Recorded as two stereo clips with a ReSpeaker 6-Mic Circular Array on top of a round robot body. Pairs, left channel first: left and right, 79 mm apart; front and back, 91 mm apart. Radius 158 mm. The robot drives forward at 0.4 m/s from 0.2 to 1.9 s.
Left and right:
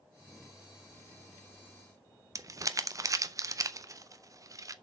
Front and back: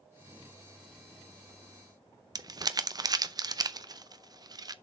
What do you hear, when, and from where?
2.4 s crumpling: 135° right, 0.7 m